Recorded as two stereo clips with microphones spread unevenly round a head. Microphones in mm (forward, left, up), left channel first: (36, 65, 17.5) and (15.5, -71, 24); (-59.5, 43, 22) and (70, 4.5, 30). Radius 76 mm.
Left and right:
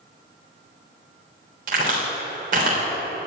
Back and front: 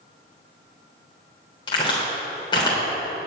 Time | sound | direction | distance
1.7 | a crack | 135° right | 3.5 m